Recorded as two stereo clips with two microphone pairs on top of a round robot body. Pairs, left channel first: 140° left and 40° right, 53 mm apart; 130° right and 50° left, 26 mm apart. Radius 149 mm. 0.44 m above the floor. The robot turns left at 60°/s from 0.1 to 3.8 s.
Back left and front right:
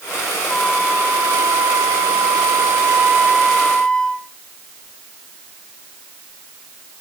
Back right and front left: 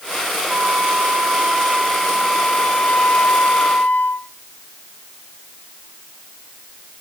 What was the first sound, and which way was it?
A flute, 55° left.